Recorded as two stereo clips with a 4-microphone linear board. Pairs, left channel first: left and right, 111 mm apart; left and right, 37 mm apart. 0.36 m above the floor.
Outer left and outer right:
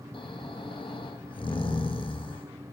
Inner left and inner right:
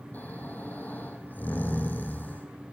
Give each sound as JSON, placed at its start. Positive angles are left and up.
{"t": 0.1, "sound": "snoring", "side_deg": 55, "distance_m": 4.0}